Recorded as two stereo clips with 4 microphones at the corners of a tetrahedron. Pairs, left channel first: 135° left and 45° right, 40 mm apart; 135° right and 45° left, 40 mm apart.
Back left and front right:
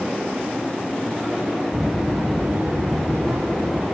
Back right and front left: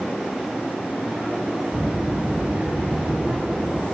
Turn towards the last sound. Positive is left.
turn(degrees=-15)